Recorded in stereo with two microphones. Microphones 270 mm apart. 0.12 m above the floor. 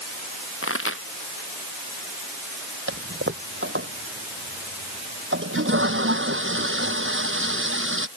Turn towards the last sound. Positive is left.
turn(degrees=-45)  # may be behind; listen again after turning